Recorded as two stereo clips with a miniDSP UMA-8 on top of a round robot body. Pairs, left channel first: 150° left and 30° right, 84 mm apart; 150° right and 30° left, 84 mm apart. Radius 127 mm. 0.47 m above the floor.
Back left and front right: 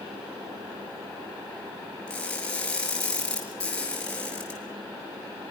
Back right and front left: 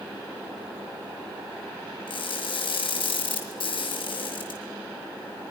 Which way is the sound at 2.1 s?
130° right.